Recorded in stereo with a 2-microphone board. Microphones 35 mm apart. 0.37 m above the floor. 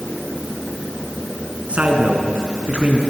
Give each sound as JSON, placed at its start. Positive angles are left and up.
{"t": 1.7, "sound": "a man speaking", "side_deg": -40, "distance_m": 3.5}